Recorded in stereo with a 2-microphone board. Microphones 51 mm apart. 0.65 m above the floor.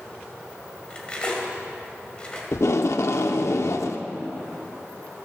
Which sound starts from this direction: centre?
Cutlery clinking, at 0.9 s.